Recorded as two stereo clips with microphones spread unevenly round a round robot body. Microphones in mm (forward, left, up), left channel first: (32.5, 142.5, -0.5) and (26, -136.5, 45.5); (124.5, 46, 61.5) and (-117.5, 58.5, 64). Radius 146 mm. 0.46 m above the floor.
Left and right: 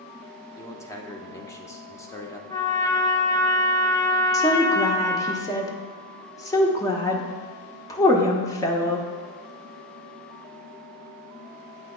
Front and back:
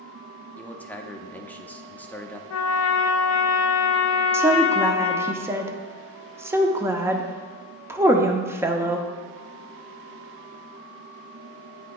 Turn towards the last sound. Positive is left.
turn(degrees=110)